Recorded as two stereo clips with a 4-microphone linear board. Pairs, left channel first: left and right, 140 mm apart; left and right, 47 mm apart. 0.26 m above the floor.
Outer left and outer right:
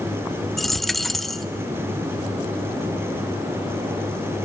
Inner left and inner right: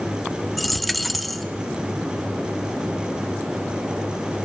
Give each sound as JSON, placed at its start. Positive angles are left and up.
{"t": 0.6, "sound": "a dropped coin", "side_deg": 0, "distance_m": 0.5}